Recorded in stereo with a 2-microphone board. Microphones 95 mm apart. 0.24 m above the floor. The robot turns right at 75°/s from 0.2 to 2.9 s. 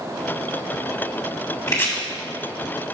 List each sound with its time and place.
1.7 s chopping: 35° left (ahead or behind), 2 m; by 1.9 s 30° left (ahead or behind), 2 m